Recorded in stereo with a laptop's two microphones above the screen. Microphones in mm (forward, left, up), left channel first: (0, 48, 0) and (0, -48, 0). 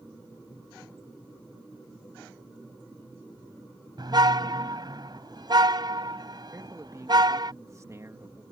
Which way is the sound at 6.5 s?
35° right (ahead or behind).